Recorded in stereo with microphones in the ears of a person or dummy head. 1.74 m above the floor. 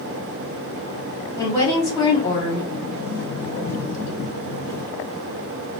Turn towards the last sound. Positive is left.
turn(degrees=45)  # may be behind; listen again after turning